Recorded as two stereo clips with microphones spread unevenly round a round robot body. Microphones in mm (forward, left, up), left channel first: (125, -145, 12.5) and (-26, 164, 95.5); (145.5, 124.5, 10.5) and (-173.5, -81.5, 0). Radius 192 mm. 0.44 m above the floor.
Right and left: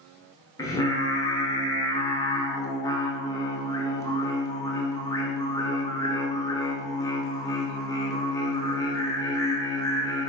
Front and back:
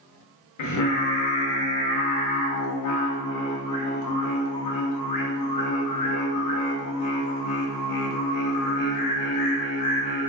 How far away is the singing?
About 0.6 m.